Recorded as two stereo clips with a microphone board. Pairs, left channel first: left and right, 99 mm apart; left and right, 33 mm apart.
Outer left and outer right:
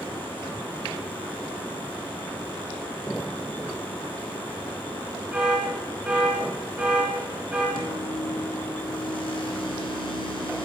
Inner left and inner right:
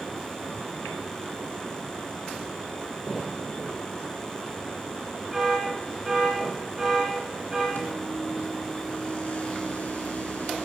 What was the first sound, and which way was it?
An alarm, 15° right (ahead or behind).